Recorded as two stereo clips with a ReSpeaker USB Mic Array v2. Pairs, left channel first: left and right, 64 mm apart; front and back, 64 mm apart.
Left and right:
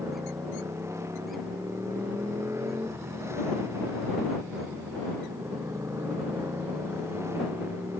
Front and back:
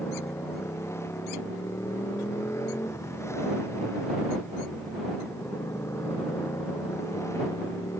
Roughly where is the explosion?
No explosion in this recording.